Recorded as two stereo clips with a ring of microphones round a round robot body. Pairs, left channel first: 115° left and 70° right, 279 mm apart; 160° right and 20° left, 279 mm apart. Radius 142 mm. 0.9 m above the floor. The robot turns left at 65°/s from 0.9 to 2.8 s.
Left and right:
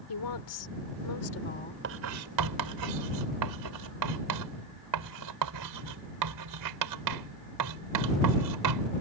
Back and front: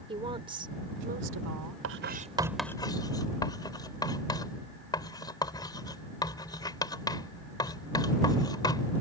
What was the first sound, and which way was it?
A woman speaking, 95° left.